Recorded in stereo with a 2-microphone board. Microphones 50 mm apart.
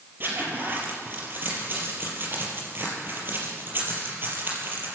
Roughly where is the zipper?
Right.